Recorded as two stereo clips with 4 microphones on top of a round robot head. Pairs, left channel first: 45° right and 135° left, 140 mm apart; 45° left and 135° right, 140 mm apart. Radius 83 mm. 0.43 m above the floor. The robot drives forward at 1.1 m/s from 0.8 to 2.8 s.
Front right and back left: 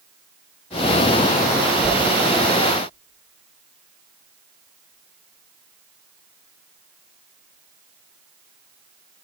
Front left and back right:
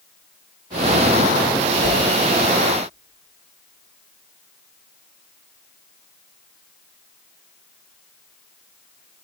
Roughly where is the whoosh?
Ahead left.